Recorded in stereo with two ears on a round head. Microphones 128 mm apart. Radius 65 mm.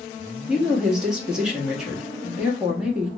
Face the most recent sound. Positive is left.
turn(degrees=-5)  # may be behind; listen again after turning